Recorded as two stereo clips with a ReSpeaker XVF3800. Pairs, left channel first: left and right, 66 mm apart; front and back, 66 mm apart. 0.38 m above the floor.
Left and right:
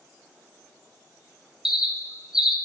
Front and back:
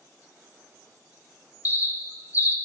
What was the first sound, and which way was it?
A bird, 10° right.